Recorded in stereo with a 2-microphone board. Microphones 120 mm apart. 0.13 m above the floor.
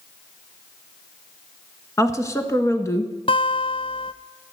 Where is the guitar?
45° left (ahead or behind), 0.6 m.